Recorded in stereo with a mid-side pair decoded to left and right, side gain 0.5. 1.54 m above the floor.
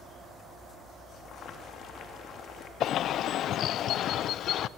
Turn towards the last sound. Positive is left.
turn(degrees=65)